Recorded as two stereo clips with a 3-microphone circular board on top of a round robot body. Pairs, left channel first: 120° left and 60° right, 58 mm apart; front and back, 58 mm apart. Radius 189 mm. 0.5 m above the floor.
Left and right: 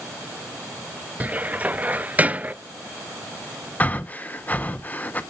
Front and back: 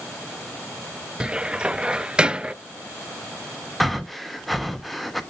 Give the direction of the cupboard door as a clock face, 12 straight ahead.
4 o'clock.